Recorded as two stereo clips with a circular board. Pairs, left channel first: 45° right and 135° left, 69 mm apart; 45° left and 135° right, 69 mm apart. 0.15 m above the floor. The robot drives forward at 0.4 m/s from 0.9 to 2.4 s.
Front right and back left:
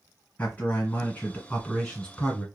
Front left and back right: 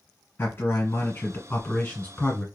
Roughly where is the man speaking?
Ahead.